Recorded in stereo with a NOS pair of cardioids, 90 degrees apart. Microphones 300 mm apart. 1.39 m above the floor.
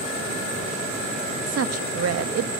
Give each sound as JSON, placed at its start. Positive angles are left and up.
{"t": 1.5, "sound": "a woman speaking", "azimuth_deg": -55, "distance_m": 2.0}